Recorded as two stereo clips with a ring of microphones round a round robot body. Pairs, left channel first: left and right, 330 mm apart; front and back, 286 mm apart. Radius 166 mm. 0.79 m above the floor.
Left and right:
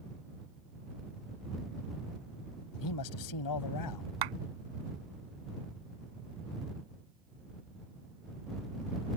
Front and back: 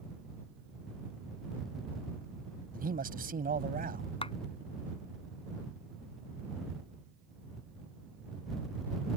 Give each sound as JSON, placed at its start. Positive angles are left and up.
{"t": 2.7, "sound": "a man speaking", "azimuth_deg": 120}
{"t": 4.2, "sound": "a clap", "azimuth_deg": -75}